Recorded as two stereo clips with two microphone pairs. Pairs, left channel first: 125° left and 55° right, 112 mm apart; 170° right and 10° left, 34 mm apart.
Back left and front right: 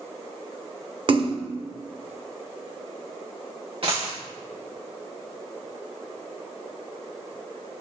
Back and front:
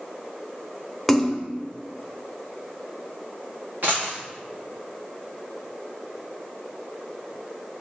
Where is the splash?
90° right, 0.7 m.